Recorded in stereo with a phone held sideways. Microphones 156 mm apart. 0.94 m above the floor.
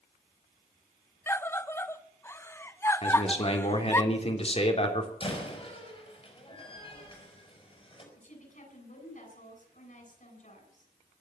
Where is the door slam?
35° left (ahead or behind), 5 m.